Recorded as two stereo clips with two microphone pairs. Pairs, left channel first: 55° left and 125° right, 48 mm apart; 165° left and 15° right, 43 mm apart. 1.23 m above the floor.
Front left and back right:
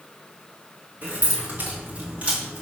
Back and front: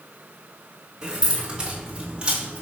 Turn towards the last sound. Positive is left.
turn(degrees=-70)